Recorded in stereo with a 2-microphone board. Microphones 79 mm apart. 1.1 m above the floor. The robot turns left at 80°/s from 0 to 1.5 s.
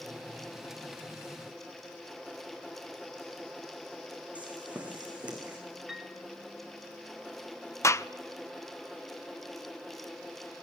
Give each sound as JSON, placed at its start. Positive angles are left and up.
{"t": 4.3, "sound": "footsteps", "side_deg": -15, "distance_m": 4.5}
{"t": 5.9, "sound": "a piano", "side_deg": -10, "distance_m": 1.9}
{"t": 7.8, "sound": "a gunshot", "side_deg": 35, "distance_m": 0.5}